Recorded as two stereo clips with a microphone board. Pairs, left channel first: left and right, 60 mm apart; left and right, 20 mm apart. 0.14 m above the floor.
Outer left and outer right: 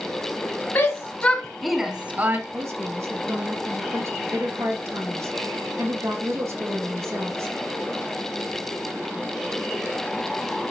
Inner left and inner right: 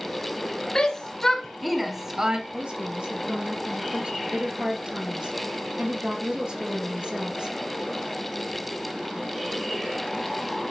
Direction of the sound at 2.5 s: 60° right (ahead or behind).